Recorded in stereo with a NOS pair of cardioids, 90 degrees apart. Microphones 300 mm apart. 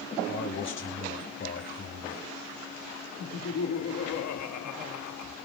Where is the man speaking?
40° left, 6 m.